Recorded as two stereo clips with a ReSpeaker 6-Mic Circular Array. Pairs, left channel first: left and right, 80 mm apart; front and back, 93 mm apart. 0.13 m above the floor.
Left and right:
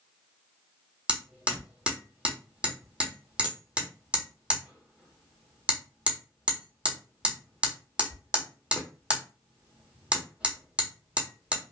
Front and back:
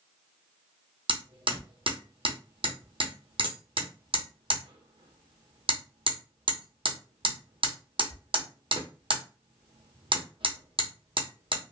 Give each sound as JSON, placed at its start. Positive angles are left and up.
{"t": 1.1, "sound": "hammering", "azimuth_deg": -165, "distance_m": 1.3}